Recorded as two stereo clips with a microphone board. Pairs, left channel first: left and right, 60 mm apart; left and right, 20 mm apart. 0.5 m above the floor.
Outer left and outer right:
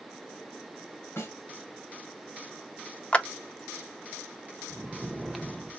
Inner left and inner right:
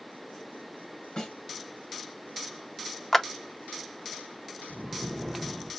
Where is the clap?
20° left (ahead or behind), 0.5 m.